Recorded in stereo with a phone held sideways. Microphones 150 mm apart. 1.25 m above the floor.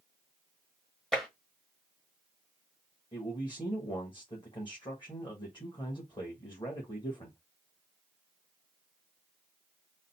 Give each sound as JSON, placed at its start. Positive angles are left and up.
{"t": 1.1, "sound": "tapping", "side_deg": 5, "distance_m": 1.1}
{"t": 3.1, "sound": "a man speaking", "side_deg": 30, "distance_m": 1.5}